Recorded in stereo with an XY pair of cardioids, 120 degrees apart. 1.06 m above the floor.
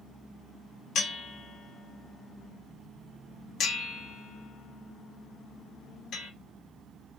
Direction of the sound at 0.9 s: 60° left.